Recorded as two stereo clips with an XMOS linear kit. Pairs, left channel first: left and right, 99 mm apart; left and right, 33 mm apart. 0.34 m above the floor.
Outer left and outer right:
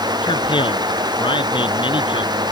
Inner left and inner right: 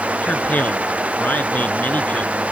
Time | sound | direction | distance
0.2 | a man speaking | 55° left (ahead or behind) | ?